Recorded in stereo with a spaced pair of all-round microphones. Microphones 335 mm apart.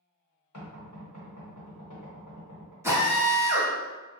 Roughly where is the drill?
Centre.